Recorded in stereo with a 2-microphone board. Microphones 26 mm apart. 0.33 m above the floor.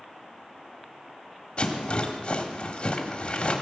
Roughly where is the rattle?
Left.